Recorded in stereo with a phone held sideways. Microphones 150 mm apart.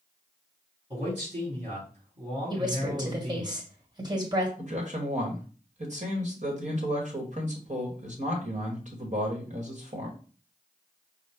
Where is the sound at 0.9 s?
45° right (ahead or behind), 3.5 m.